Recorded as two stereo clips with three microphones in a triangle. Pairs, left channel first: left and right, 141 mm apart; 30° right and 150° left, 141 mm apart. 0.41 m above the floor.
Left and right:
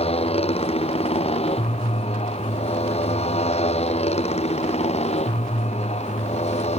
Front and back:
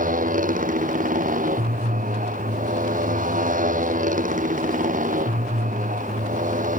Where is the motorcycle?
135° left; by 6.8 s 130° left.